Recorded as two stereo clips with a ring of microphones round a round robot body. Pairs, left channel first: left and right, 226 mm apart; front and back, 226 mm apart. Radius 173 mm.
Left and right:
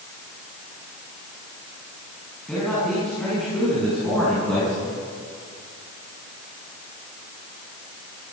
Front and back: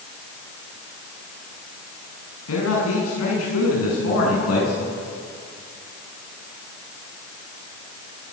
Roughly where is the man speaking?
Ahead.